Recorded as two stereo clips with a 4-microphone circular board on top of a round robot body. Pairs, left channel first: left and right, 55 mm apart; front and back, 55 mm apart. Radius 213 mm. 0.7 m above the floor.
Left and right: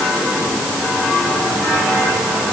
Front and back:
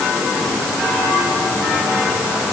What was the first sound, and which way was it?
Only background noise.